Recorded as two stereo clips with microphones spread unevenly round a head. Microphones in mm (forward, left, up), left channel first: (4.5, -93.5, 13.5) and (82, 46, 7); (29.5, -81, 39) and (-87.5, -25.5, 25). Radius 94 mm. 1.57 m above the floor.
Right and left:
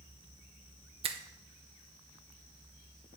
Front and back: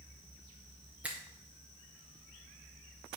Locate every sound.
1.0 s a finger snap: 70° left, 0.6 m